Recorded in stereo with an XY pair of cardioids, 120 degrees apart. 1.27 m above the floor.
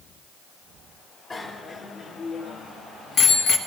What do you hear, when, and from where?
1.3 s a bicycle bell: 30° left, 2.5 m; by 3.6 s 65° left, 1.6 m